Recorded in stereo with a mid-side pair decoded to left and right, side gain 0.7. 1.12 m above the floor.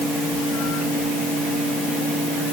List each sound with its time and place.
Only background noise.